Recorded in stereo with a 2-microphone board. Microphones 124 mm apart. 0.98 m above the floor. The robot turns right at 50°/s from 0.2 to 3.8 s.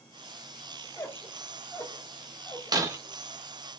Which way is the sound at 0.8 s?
20° left (ahead or behind).